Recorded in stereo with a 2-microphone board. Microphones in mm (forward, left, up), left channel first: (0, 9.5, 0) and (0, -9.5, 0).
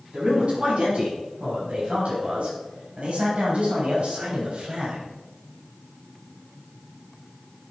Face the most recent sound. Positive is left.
turn(degrees=-65)  # may be behind; listen again after turning